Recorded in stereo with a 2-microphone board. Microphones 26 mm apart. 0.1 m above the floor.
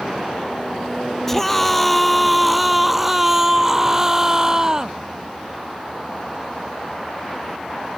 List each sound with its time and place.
1.3 s a scream: 10° left (ahead or behind); by 5.0 s 25° right (ahead or behind)